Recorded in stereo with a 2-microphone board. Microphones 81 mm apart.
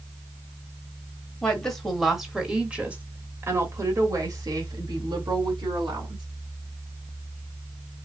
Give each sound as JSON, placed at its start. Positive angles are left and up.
{"t": 1.4, "sound": "a woman speaking", "side_deg": 10, "distance_m": 1.7}